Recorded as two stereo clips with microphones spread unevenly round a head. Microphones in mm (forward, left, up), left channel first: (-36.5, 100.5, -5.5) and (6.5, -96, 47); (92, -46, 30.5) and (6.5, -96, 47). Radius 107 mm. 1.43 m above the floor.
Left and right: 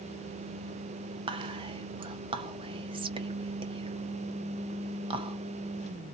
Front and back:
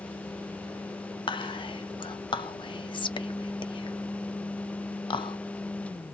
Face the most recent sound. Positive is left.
turn(degrees=-10)